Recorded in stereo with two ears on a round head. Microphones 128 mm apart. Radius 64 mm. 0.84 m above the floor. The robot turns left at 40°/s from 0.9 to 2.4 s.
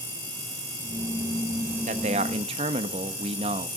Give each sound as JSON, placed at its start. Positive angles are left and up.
{"t": 1.9, "sound": "a man speaking", "side_deg": -50, "distance_m": 1.1}